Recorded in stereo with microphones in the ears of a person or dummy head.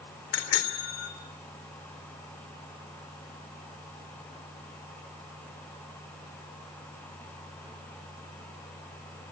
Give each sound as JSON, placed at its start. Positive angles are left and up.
{"t": 0.3, "sound": "a bicycle bell", "side_deg": 65, "distance_m": 3.0}